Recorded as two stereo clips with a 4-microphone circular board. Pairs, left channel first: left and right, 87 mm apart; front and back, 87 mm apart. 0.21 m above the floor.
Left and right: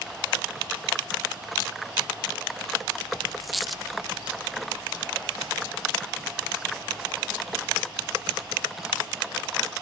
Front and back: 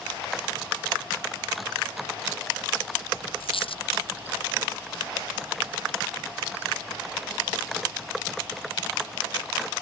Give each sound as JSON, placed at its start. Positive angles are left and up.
{"t": 3.4, "sound": "a dropped coin", "azimuth_deg": 0}